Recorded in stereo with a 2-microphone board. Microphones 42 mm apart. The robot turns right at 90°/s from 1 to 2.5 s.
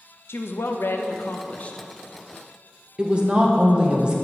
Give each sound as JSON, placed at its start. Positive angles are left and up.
{"t": 0.3, "sound": "a woman speaking", "azimuth_deg": 85, "distance_m": 0.6}
{"t": 3.0, "sound": "a woman speaking", "side_deg": -25, "distance_m": 0.6}